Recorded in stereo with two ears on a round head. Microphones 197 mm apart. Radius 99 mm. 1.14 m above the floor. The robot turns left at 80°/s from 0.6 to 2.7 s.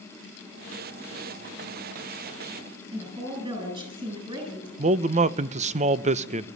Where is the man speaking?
30° right (ahead or behind), 0.7 m.